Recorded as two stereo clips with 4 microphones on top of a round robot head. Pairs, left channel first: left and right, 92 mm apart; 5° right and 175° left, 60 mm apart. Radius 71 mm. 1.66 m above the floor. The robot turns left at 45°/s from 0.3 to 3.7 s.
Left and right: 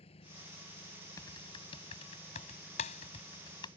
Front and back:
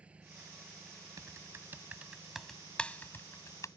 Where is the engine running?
110° left; by 3.8 s 45° right.